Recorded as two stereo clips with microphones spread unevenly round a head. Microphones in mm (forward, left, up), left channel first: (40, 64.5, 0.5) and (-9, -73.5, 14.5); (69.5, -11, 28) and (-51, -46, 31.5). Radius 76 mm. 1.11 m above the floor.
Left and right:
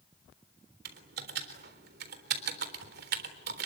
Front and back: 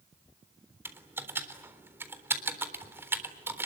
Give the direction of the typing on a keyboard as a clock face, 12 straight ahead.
3 o'clock.